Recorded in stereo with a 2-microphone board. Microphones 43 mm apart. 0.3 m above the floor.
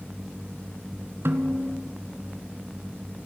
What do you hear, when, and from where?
1.2 s a snare drum: 65° right (ahead or behind), 1.2 m